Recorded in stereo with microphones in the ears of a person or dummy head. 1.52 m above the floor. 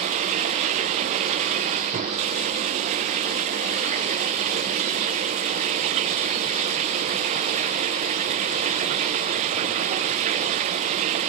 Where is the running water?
35° right (ahead or behind).